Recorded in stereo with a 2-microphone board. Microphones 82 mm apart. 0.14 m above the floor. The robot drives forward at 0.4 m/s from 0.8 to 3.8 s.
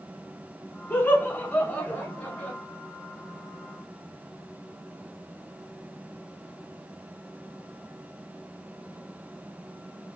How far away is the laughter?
About 1.0 m.